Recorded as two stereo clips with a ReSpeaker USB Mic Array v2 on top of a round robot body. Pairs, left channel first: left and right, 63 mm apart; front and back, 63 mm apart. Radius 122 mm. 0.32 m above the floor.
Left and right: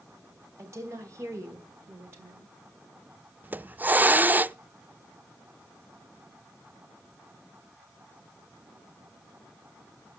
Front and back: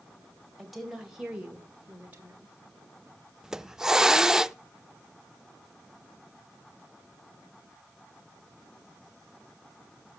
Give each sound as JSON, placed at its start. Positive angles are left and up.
{"t": 0.6, "sound": "a woman speaking", "azimuth_deg": -90, "distance_m": 2.5}
{"t": 3.4, "sound": "a hiss", "azimuth_deg": -105, "distance_m": 0.5}